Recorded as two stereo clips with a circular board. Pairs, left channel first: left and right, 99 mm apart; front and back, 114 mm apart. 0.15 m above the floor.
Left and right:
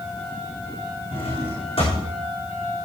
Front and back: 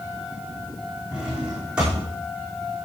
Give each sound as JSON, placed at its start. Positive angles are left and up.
{"t": 1.1, "sound": "a drawer", "azimuth_deg": 100, "distance_m": 4.5}